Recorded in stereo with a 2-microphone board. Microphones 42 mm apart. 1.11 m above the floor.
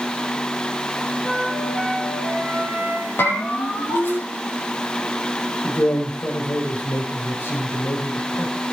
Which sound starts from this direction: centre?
A flute, at 1.2 s.